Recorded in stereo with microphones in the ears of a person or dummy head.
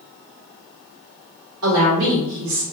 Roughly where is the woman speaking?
Right.